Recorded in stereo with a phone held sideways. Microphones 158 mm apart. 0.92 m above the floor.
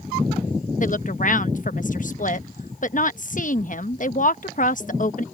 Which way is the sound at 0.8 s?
55° left (ahead or behind).